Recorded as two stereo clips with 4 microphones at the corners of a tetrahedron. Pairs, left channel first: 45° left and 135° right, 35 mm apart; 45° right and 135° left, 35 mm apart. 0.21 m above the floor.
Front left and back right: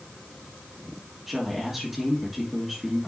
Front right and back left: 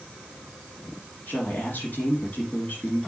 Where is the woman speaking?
45° right, 3 m.